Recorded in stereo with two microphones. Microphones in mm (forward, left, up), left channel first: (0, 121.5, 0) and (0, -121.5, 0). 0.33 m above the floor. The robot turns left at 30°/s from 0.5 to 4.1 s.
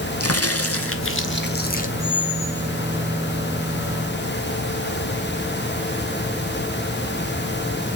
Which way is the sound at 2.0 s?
Centre (ahead or behind).